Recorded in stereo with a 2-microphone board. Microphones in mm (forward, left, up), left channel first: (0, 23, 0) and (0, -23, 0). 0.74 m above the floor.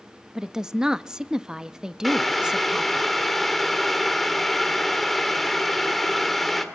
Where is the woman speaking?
15° right (ahead or behind), 0.6 m.